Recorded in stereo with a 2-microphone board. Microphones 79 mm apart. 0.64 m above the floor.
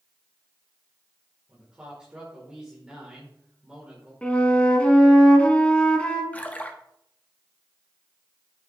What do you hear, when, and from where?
1.5 s a man speaking: 10° right (ahead or behind), 2.5 m
4.2 s a flute: 15° left (ahead or behind), 1.4 m
6.3 s a splash: 20° left (ahead or behind), 0.9 m